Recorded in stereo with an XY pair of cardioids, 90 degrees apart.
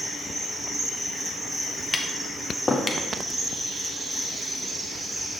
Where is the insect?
30° right, 3 m.